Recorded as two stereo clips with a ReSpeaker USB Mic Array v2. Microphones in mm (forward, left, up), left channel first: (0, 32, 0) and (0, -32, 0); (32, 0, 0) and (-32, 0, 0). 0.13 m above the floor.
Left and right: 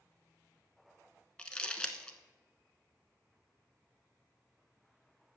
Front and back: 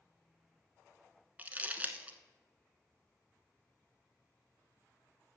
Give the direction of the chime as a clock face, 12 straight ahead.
I don't hear a chime.